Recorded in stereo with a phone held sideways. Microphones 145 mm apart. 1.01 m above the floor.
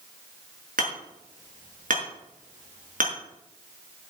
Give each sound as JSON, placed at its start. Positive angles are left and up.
{"t": 0.8, "sound": "hammering", "side_deg": -70, "distance_m": 5.0}